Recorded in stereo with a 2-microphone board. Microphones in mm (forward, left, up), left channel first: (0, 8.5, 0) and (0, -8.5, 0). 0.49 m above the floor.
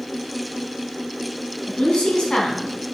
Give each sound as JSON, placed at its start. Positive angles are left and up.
{"t": 1.7, "sound": "a woman speaking", "side_deg": 80, "distance_m": 4.5}